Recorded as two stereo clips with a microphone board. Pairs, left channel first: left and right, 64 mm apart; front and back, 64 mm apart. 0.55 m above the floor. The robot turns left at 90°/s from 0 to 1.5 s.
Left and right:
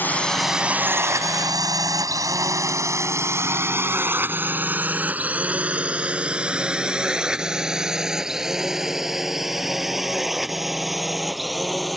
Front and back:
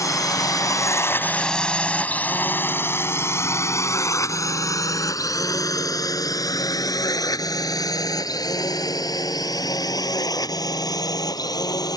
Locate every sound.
0.0 s a drone: 30° left; by 12.0 s straight ahead